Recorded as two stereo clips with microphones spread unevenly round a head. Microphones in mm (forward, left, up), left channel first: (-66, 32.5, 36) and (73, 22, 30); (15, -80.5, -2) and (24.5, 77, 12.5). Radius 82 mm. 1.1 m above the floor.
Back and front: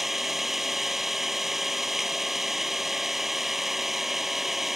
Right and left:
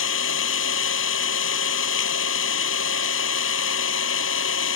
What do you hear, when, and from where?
0.0 s an engine running: 95° right